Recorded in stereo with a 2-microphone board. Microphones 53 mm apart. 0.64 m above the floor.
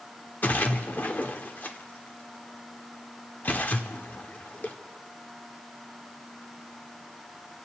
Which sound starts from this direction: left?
A splash, at 0.4 s.